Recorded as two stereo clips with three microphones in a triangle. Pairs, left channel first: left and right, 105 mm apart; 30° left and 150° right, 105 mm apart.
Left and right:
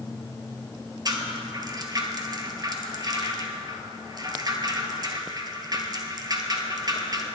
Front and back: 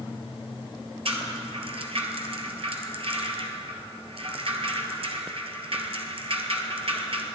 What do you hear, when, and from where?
1.1 s a rattle: 135° right, 1.2 m